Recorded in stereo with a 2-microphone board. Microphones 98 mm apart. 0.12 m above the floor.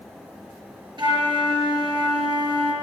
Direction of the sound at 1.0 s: 45° right (ahead or behind).